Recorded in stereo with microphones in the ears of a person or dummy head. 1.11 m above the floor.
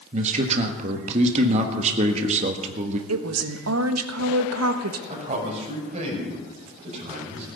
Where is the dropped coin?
I don't hear a dropped coin.